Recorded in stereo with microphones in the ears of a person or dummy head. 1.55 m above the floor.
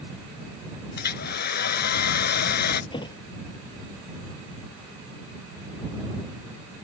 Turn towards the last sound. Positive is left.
turn(degrees=25)  # may be behind; listen again after turning